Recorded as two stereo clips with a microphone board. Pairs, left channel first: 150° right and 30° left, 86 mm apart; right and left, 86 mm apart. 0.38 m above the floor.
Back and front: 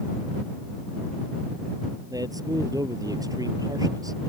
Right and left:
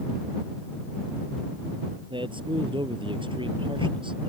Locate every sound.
2.1 s a man speaking: 75° left